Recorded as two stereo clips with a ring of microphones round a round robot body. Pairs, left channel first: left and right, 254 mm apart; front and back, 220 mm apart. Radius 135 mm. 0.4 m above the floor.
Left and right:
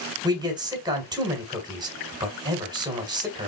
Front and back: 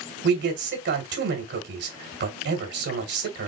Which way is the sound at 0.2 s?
160° right.